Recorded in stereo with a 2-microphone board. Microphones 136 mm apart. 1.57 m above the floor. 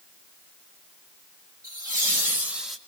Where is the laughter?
30° right (ahead or behind), 3 m; by 2.8 s centre (ahead or behind), 1.7 m.